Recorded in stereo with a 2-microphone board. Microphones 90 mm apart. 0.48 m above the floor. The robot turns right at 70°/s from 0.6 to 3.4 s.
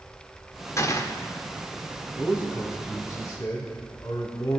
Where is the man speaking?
30° right, 3.5 m; by 4.6 s 55° left, 3.5 m.